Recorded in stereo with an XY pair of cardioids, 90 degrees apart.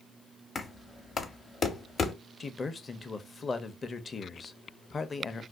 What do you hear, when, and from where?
0.6 s knocking: 35° left, 0.8 m
2.4 s a man speaking: 35° left, 0.6 m